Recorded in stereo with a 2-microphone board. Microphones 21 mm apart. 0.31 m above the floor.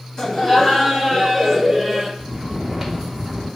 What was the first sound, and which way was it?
Laughter, 35° left (ahead or behind).